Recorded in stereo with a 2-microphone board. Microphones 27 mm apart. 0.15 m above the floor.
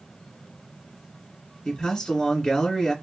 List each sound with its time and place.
1.6 s a man speaking: 35° left (ahead or behind), 2.0 m